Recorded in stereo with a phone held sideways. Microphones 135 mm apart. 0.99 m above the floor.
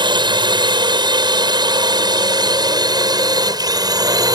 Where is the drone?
35° right (ahead or behind); by 4.3 s 30° right (ahead or behind).